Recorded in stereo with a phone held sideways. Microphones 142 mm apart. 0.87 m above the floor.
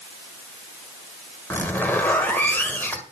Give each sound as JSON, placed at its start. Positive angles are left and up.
{"t": 1.5, "sound": "a zipper", "side_deg": 15, "distance_m": 1.5}